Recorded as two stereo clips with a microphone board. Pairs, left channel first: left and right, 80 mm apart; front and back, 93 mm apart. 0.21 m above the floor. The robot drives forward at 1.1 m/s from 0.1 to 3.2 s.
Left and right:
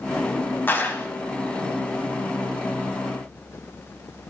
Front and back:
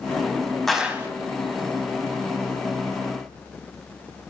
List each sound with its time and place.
0.7 s a clap: 80° left, 0.8 m; by 1.1 s 140° left, 0.9 m